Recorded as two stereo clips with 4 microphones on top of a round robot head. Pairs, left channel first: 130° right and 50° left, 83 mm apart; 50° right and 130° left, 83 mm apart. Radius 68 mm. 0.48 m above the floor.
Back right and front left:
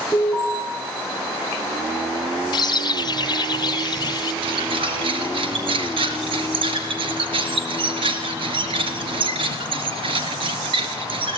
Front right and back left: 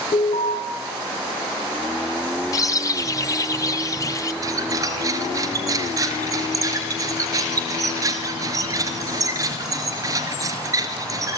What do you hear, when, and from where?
0.1 s an alarm: 30° right, 6 m
2.5 s a bird: 100° right, 1.0 m
4.4 s a squeak: 75° left, 2 m